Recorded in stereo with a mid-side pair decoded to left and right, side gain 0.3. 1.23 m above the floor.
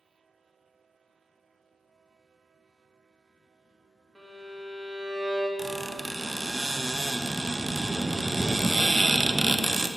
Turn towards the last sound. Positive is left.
turn(degrees=-15)